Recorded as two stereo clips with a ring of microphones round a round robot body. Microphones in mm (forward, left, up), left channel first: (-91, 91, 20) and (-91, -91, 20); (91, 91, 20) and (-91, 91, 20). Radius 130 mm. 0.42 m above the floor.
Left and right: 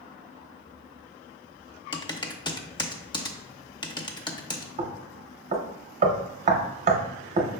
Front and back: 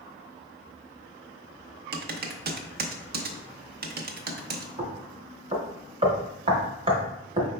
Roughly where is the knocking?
Behind right.